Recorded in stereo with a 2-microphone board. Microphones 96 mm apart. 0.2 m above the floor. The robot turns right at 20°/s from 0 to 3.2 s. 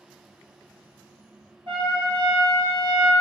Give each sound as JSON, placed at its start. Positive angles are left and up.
{"t": 1.7, "sound": "a trumpet", "side_deg": -65, "distance_m": 0.9}